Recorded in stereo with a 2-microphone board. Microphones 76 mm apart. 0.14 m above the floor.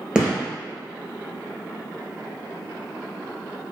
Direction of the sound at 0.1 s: 10° right (ahead or behind).